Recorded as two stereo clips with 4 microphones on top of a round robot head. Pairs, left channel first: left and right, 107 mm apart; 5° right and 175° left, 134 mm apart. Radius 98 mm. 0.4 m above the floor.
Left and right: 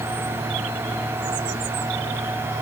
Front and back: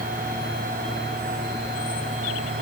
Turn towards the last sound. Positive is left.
No sound to turn to.